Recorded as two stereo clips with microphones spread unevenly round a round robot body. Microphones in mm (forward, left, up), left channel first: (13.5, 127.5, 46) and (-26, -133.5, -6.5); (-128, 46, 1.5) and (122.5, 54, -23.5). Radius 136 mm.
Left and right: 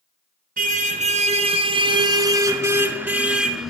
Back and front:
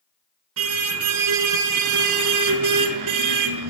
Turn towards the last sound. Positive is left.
turn(degrees=-10)